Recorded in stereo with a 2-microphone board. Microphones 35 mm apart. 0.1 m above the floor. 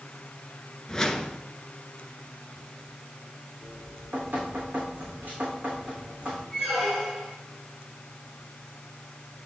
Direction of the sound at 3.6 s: 50° right (ahead or behind).